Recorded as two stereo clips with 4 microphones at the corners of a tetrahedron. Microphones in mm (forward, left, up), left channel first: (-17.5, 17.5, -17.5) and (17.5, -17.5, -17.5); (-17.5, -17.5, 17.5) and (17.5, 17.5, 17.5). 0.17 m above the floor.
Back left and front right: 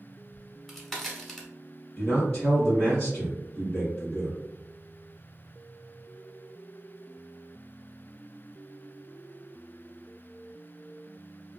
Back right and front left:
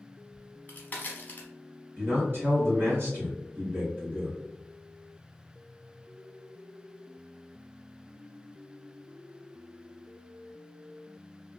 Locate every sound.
0.3 s a crack: 140° right, 0.8 m
2.0 s a man speaking: 65° left, 1.7 m